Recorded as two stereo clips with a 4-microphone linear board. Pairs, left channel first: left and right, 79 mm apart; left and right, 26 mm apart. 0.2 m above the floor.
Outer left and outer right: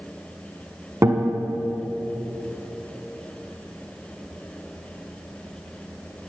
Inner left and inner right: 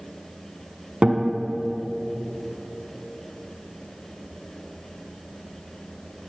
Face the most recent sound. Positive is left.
turn(degrees=-40)  # may be behind; listen again after turning